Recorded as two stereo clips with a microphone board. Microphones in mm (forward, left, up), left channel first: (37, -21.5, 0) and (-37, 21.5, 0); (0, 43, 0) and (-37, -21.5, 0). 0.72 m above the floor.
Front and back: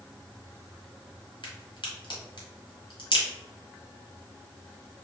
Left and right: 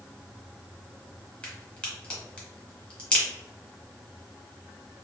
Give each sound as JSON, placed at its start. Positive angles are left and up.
{"t": 1.4, "sound": "a crack", "azimuth_deg": -15, "distance_m": 1.4}